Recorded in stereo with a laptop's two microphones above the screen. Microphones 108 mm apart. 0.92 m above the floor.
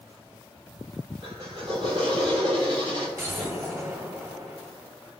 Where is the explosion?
25° right (ahead or behind), 1.4 m.